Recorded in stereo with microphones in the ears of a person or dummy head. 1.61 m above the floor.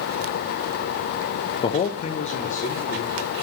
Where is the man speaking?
25° left (ahead or behind), 0.5 m; by 3.2 s 40° left (ahead or behind), 1.7 m.